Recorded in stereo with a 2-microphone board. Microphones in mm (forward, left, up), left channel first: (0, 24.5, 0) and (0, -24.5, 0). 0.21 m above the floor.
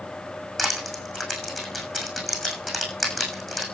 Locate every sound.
0.6 s crushing: centre (ahead or behind), 6.5 m